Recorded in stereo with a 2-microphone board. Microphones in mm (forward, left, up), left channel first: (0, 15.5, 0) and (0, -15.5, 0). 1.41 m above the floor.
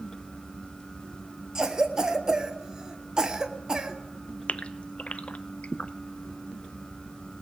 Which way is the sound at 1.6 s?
20° right (ahead or behind).